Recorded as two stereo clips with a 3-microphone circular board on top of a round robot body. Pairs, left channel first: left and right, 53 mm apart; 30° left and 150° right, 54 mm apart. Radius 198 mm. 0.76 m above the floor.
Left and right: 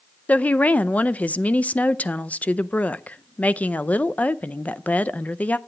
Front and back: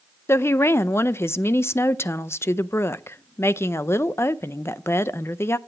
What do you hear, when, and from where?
0.3 s a woman speaking: 35° left, 0.6 m